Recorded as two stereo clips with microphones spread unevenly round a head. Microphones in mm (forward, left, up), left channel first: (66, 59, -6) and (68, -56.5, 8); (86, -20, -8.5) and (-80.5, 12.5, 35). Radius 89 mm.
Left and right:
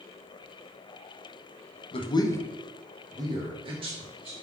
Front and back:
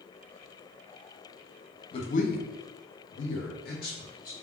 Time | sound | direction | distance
1.9 | a man speaking | 50° left | 0.6 m